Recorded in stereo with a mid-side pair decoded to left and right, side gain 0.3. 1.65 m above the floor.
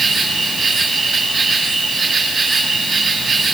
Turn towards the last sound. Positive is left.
turn(degrees=-60)